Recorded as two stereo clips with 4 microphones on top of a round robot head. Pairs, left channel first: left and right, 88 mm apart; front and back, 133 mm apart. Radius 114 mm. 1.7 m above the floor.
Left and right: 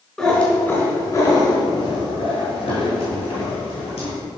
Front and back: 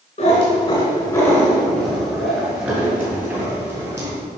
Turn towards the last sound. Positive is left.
turn(degrees=115)